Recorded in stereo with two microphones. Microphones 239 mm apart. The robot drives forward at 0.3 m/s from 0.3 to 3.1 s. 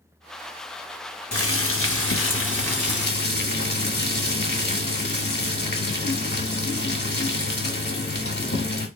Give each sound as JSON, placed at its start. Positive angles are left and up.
{"t": 1.3, "sound": "boiling", "side_deg": 70, "distance_m": 1.0}